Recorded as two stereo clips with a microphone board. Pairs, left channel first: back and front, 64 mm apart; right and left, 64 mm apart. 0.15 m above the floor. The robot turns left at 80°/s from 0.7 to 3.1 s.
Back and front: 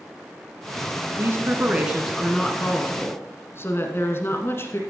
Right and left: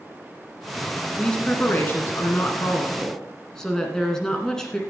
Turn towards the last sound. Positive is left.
turn(degrees=-165)